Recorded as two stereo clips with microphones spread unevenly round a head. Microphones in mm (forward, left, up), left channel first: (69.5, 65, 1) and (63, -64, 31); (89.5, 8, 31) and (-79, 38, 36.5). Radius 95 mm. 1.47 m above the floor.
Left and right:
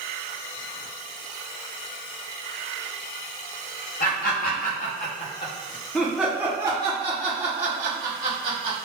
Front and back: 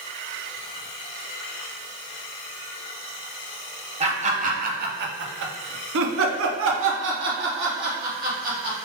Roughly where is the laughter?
Behind left.